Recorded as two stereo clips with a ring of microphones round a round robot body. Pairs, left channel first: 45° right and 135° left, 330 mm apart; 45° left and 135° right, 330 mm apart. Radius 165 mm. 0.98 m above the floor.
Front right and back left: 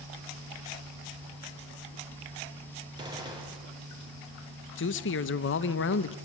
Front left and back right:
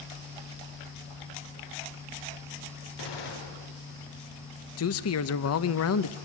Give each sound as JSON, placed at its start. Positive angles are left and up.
{"t": 3.0, "sound": "a gunshot", "azimuth_deg": 55, "distance_m": 4.0}
{"t": 4.8, "sound": "a man speaking", "azimuth_deg": 5, "distance_m": 0.8}